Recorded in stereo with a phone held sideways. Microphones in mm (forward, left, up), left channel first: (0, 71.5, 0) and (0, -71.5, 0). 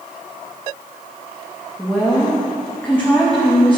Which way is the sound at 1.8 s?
10° left (ahead or behind).